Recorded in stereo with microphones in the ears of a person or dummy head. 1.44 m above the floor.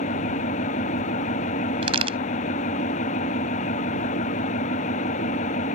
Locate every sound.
0.0 s an engine running: 40° left (ahead or behind)
1.8 s a crack: 35° right (ahead or behind)